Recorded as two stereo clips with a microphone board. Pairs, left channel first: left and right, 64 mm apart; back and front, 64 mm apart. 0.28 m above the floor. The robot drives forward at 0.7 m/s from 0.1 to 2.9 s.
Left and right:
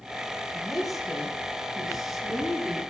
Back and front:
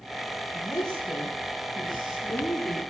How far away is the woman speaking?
About 5 m.